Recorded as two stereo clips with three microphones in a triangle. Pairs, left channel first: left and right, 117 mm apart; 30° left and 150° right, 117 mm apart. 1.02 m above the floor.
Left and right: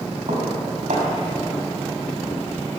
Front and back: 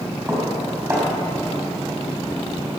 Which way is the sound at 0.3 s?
80° right.